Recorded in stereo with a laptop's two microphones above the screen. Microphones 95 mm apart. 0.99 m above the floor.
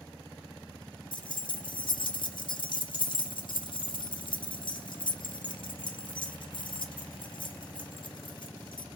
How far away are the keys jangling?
About 0.5 m.